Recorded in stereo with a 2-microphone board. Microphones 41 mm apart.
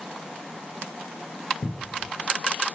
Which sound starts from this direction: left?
A cupboard door, at 1.6 s.